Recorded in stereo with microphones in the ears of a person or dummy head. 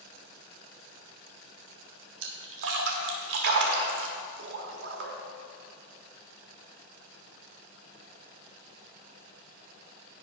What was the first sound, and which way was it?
A splash, 70° right (ahead or behind).